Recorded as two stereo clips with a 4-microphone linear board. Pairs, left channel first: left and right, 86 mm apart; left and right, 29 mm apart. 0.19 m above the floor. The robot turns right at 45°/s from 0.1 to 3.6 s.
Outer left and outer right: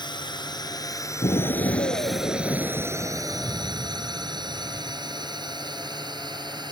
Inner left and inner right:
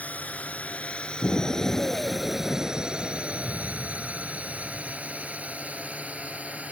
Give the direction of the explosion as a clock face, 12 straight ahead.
10 o'clock.